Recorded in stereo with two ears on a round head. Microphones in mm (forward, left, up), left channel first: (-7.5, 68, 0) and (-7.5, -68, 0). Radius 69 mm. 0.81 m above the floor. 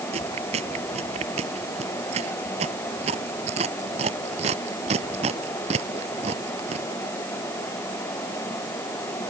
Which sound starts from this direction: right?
Chewing, at 0.1 s.